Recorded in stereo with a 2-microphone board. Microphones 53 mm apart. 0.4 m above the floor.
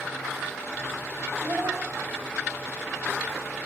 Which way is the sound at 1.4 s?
50° right (ahead or behind).